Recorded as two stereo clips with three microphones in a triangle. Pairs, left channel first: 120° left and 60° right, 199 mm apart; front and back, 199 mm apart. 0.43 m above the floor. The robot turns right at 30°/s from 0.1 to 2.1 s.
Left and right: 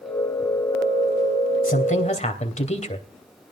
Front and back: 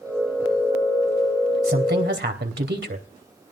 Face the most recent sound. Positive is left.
turn(degrees=170)